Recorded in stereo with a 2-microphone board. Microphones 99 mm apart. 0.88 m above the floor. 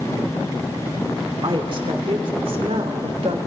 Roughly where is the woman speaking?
Right.